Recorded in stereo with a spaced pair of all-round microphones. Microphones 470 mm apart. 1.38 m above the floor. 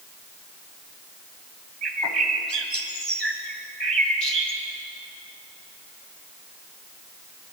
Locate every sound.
1.8 s a bird: 60° right (ahead or behind), 2 m